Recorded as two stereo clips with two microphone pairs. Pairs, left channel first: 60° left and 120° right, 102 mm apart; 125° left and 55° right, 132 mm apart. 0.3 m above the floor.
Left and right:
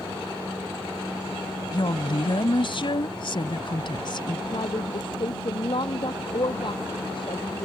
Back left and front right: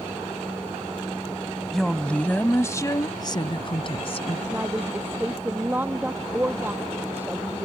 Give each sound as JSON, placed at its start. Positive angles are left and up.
{"t": 1.7, "sound": "a woman speaking", "azimuth_deg": 40}
{"t": 4.5, "sound": "a woman speaking", "azimuth_deg": 25}